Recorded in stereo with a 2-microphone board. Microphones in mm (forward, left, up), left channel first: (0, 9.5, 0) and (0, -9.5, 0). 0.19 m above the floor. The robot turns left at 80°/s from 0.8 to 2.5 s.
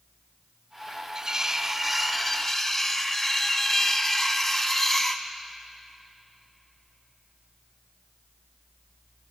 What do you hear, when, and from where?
1.1 s cutlery clinking: 95° right, 0.8 m; by 5.2 s 155° left, 0.8 m